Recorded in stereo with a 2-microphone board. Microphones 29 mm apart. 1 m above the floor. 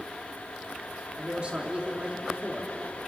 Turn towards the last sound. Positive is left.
turn(degrees=-40)  # may be behind; listen again after turning